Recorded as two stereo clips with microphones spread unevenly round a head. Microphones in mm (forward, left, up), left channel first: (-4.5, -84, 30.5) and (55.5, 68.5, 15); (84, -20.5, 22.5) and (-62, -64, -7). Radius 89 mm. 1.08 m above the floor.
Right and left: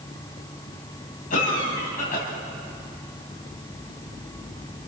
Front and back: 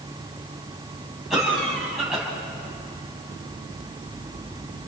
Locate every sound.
1.3 s a cough: 75° right, 8.5 m